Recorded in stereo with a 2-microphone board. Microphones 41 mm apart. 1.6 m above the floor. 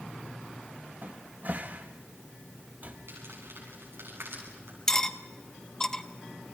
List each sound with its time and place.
1.0 s a cupboard door: 45° right (ahead or behind), 1.7 m
3.1 s crumpling: 85° right, 8.5 m
4.9 s cutlery clinking: 15° left (ahead or behind), 0.8 m